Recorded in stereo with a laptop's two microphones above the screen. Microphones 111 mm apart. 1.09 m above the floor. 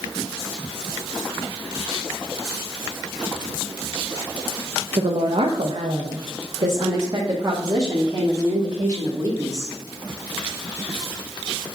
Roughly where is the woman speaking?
Right.